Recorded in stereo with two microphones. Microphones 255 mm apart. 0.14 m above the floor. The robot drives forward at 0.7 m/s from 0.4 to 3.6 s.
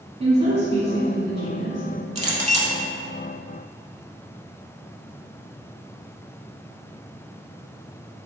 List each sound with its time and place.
0.2 s a woman speaking: 25° right (ahead or behind), 1.1 m; by 1.8 s 20° right (ahead or behind), 1.3 m
2.1 s a clink: 25° right (ahead or behind), 0.8 m; by 2.8 s 30° right (ahead or behind), 0.7 m